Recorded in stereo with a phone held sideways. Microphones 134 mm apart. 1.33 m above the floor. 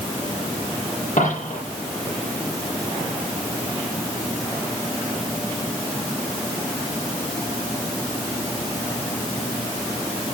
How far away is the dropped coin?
About 9.5 m.